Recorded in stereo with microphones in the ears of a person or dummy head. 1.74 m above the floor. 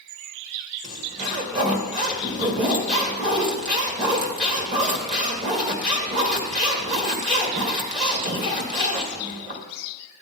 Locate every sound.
0.8 s a zipper: 40° right (ahead or behind), 2 m